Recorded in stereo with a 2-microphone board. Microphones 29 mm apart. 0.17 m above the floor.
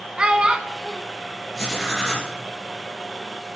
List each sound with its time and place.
0.2 s a child speaking: 35° right (ahead or behind), 0.9 m
1.6 s writing: 5° right (ahead or behind), 3 m